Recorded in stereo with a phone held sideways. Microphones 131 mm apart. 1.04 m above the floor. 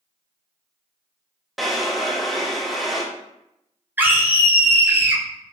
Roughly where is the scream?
Centre.